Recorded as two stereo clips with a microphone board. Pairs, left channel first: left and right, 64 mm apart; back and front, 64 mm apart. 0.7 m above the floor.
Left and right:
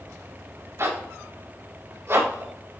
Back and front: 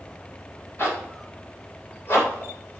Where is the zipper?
135° right, 3.5 m.